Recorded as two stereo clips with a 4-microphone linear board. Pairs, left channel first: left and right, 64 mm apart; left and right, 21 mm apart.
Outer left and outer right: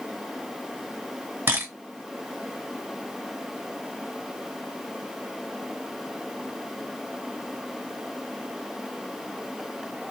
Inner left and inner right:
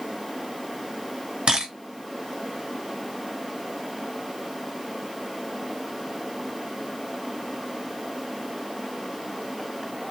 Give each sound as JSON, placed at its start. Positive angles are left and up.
{"t": 1.5, "sound": "a camera shutter", "side_deg": -40, "distance_m": 1.6}